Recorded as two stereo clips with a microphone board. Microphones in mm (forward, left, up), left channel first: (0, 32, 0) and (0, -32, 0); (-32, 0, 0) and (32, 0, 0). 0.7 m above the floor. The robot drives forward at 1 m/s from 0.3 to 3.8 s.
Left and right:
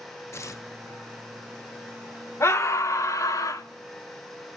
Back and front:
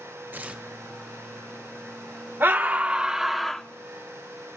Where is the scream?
55° left, 1.8 m; by 3.6 s 100° left, 1.6 m.